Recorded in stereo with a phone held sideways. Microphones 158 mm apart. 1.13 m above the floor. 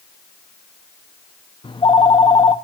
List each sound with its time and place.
1.6 s a phone ringing: 30° left (ahead or behind), 0.5 m